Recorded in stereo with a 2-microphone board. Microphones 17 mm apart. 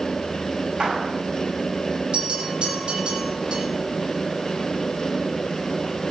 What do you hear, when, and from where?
0.8 s a clap: 85° right, 7.5 m
2.1 s a bell: 80° right, 9.5 m